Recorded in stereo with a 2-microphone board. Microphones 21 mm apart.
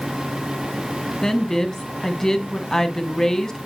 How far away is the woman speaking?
About 1.7 m.